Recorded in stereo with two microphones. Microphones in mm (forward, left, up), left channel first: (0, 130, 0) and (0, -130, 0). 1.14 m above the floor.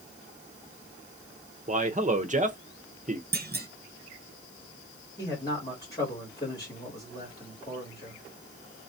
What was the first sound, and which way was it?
A man speaking, 30° right (ahead or behind).